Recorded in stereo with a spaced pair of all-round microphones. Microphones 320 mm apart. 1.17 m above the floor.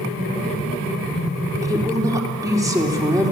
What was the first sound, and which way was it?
A woman speaking, 10° right (ahead or behind).